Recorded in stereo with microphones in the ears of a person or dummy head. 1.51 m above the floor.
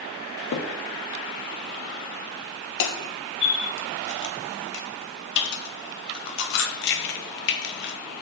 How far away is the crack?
About 1.0 m.